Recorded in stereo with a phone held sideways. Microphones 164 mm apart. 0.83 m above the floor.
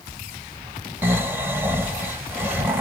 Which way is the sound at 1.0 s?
15° right (ahead or behind).